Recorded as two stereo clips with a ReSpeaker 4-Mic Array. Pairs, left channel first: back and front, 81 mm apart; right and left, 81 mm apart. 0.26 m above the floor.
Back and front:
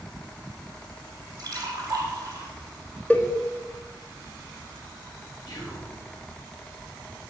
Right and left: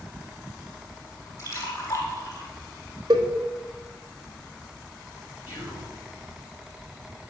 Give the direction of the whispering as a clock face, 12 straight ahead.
5 o'clock.